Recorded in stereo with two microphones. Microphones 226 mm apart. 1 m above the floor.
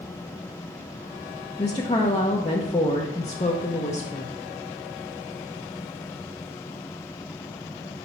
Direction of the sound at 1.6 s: 30° left (ahead or behind).